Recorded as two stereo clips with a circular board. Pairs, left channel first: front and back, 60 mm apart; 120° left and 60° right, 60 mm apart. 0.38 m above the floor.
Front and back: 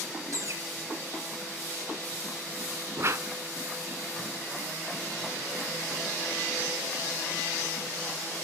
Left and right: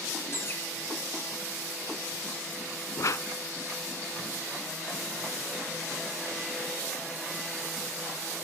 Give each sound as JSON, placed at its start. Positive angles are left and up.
{"t": 0.3, "sound": "a bird", "azimuth_deg": 160, "distance_m": 1.8}
{"t": 3.0, "sound": "a whoosh", "azimuth_deg": 140, "distance_m": 0.6}